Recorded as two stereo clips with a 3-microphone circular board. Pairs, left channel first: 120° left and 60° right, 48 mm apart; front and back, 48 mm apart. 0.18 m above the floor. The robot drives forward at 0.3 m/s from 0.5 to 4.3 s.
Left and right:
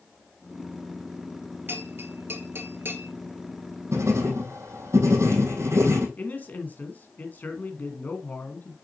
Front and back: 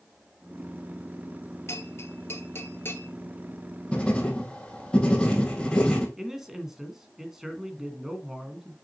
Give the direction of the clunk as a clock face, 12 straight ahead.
No clunk in this recording.